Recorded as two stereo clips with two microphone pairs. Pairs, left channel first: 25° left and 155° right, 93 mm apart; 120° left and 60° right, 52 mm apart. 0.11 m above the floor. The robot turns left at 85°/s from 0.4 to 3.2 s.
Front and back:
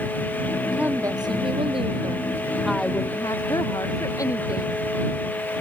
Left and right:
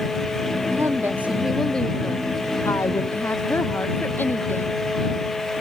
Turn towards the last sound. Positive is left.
turn(degrees=75)